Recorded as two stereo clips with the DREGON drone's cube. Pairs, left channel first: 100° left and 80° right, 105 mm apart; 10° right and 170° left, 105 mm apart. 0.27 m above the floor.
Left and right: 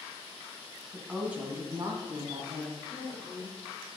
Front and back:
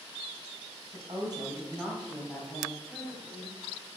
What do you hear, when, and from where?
0.9 s a woman speaking: 170° right, 1.7 m; by 2.8 s 75° right, 2.0 m
2.9 s a woman speaking: 95° left, 2.5 m